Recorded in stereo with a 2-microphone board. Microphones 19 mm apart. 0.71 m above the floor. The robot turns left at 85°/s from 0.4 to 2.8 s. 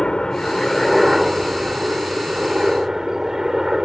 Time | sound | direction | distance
0.0 | a helicopter | 50° left | ?